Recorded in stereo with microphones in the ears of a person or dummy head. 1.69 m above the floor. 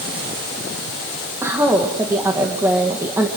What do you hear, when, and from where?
1.4 s a woman speaking: 10° right (ahead or behind), 2 m